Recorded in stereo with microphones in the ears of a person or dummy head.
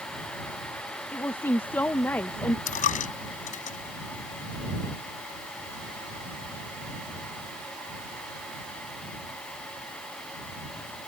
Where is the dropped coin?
45° left (ahead or behind).